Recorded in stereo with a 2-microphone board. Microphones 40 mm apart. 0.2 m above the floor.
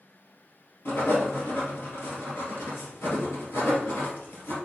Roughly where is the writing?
Left.